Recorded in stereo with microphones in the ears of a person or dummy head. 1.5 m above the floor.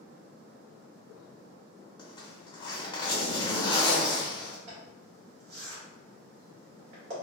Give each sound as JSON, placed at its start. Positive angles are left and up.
{"t": 2.0, "sound": "a zipper", "side_deg": 25, "distance_m": 0.7}
{"t": 4.7, "sound": "a zipper", "side_deg": -65, "distance_m": 1.2}